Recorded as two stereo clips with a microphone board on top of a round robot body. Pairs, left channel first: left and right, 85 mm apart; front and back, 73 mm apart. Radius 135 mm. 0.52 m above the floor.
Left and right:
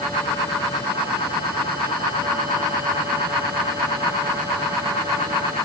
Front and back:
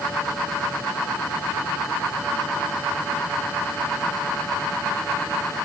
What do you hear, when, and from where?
Only background noise.